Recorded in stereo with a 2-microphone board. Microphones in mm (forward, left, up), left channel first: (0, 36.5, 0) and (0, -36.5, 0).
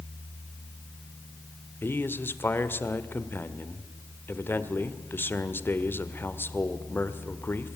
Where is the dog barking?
I don't hear a dog barking.